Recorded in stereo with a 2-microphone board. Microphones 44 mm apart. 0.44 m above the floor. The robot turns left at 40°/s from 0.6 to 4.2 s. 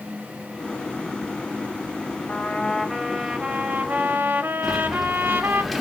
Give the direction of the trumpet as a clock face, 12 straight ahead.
11 o'clock.